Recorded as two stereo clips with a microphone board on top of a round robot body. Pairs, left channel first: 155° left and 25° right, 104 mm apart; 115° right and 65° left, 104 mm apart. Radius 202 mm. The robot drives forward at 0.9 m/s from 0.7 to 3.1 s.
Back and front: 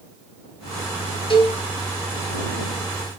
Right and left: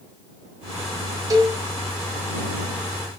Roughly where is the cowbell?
Behind left.